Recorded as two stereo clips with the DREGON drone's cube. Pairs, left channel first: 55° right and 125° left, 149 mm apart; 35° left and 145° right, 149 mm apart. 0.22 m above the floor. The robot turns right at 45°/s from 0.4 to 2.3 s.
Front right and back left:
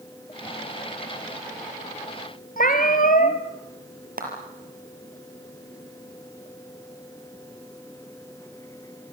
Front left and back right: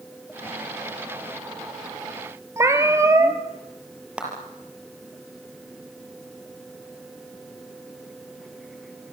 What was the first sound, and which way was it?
A cat meowing, 75° right.